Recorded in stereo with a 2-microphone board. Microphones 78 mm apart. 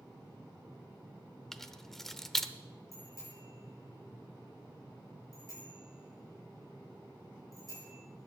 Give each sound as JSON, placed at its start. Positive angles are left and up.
{"t": 1.5, "sound": "keys jangling", "side_deg": 5, "distance_m": 0.7}
{"t": 2.9, "sound": "a bicycle bell", "side_deg": 45, "distance_m": 6.5}